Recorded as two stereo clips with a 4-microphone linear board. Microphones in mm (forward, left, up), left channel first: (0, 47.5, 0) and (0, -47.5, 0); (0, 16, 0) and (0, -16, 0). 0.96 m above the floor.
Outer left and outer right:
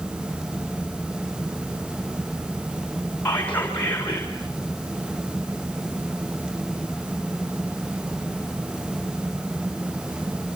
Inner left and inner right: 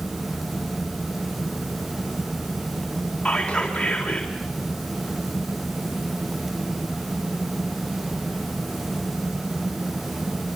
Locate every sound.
3.2 s whispering: 20° left (ahead or behind), 4 m